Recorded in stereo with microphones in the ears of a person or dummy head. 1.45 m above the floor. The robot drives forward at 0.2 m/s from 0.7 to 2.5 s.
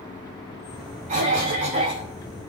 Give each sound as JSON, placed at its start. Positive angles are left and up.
{"t": 1.1, "sound": "a cough", "side_deg": -30, "distance_m": 0.7}